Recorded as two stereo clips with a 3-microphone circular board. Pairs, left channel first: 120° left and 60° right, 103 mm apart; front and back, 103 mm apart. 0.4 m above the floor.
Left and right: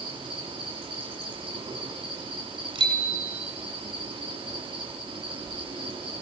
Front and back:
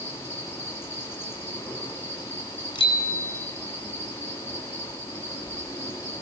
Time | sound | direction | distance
0.0 | an insect | 60° right | 5 m
2.8 | a bicycle bell | 40° right | 3 m